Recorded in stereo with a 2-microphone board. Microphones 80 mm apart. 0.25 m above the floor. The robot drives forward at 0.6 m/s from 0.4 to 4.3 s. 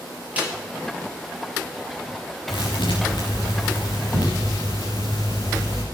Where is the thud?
80° left, 5 m; by 5.8 s 70° left (ahead or behind), 5.5 m.